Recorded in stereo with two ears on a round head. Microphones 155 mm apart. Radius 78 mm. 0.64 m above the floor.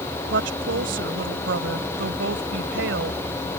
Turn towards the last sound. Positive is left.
turn(degrees=-80)